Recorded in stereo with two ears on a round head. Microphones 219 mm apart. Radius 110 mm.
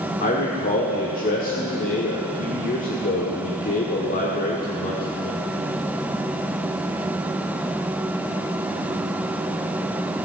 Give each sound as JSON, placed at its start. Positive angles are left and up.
{"t": 0.2, "sound": "a man speaking", "side_deg": 35, "distance_m": 1.5}